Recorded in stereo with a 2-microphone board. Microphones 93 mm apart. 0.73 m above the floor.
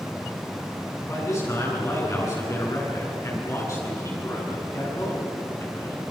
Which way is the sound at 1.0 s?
35° left (ahead or behind).